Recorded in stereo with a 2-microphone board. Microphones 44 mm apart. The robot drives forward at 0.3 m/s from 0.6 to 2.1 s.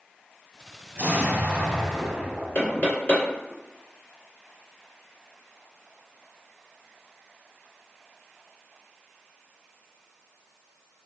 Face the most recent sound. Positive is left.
turn(degrees=35)  # may be behind; listen again after turning